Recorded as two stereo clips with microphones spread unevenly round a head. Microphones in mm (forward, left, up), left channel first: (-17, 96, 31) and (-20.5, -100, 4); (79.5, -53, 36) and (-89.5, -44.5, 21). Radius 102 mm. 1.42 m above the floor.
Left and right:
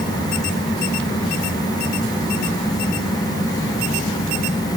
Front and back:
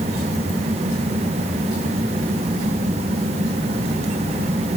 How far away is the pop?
No pop in this recording.